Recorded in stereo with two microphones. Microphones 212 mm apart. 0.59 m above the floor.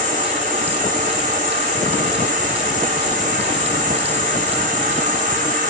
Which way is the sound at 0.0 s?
40° right (ahead or behind).